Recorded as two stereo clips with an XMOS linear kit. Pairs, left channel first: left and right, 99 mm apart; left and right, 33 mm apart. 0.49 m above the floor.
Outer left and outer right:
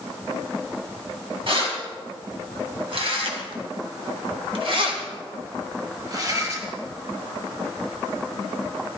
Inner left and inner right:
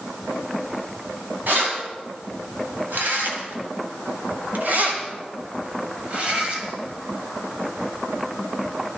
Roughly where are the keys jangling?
Right.